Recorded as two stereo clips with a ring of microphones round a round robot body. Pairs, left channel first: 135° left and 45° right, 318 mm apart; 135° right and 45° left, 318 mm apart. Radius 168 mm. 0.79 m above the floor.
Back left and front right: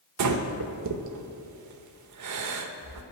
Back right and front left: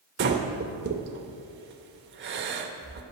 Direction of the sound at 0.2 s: 10° right.